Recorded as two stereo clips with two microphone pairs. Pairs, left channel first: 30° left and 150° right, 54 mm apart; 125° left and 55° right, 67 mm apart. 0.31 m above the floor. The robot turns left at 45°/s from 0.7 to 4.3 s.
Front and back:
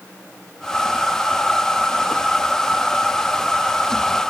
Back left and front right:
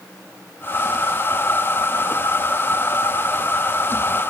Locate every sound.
Only background noise.